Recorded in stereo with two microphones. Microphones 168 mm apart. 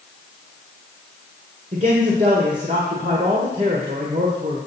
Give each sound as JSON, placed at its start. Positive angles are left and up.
{"t": 1.7, "sound": "a man speaking", "side_deg": -40, "distance_m": 1.6}